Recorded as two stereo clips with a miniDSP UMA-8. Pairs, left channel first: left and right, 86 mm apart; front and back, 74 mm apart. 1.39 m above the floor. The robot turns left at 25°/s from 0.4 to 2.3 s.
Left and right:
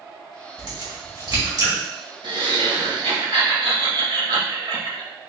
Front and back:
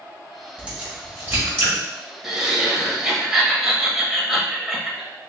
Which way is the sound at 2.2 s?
95° right.